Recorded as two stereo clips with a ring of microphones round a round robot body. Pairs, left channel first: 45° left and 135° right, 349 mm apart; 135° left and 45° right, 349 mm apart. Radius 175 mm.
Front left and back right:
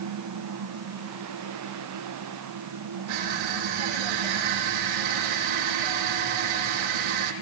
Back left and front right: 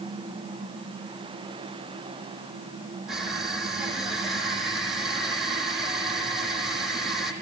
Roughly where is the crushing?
Behind right.